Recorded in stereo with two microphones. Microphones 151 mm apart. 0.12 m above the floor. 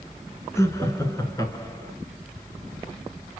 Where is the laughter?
20° left (ahead or behind), 1.4 m.